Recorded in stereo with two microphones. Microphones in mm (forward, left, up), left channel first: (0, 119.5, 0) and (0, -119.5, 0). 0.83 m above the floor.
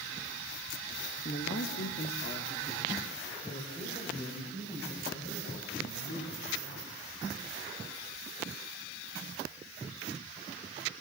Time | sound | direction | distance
1.2 | a man speaking | 45° left (ahead or behind) | 1.1 m